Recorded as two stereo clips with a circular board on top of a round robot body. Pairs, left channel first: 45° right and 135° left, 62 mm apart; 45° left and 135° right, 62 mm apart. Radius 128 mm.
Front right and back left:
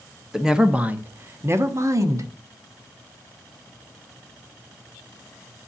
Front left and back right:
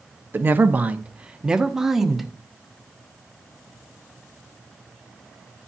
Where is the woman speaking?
145° right, 1.0 m; by 2.3 s 140° left, 1.4 m.